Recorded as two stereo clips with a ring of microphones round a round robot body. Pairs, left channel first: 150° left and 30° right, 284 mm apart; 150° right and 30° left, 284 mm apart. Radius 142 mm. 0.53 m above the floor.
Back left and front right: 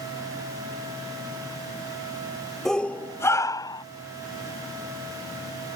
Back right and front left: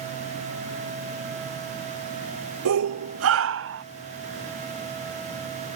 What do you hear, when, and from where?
2.6 s a shout: 60° left; by 3.8 s 75° left